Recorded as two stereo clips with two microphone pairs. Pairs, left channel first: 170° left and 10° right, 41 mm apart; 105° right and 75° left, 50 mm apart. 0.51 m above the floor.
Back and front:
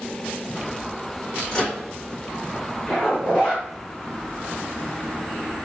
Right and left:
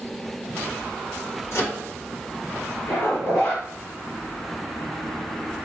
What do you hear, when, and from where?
1.5 s a microwave: 110° right, 1.9 m
2.9 s a zipper: 130° right, 1.7 m